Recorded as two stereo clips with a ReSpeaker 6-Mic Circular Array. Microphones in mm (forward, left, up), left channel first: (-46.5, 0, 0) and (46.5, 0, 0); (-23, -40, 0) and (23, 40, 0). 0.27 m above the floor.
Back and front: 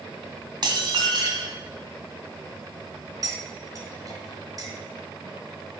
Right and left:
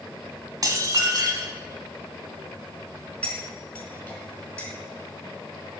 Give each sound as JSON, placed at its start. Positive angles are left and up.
{"t": 0.6, "sound": "dishes clattering", "azimuth_deg": 20, "distance_m": 1.1}
{"t": 3.2, "sound": "cutlery clinking", "azimuth_deg": -40, "distance_m": 1.8}